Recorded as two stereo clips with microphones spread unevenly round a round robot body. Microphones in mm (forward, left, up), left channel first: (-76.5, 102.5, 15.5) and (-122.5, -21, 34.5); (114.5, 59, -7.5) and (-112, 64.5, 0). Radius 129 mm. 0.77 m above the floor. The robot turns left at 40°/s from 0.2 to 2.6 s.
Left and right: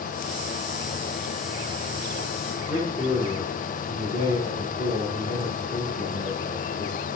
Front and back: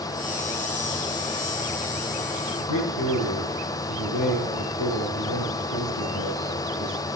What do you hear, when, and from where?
2.6 s a man speaking: 5° left, 9.5 m